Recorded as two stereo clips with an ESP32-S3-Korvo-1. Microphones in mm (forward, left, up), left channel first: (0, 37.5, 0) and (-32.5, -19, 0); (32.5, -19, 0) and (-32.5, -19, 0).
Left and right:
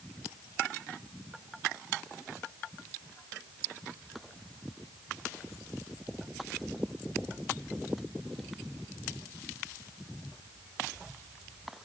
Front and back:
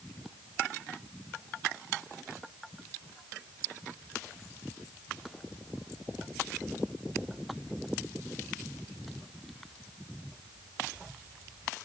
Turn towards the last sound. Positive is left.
No sound to turn to.